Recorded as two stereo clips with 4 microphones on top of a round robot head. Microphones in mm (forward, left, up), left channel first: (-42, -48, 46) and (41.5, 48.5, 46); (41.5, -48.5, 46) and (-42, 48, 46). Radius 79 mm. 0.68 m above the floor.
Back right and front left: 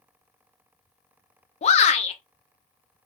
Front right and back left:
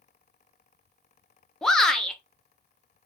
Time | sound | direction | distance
1.6 | a shout | 135° right | 0.7 m